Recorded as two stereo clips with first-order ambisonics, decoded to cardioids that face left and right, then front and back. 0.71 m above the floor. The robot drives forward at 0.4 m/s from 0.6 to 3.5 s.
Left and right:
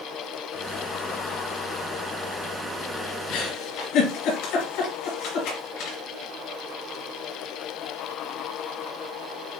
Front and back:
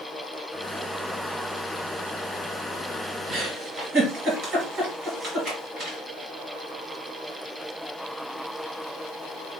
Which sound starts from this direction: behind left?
A giggle, at 3.3 s.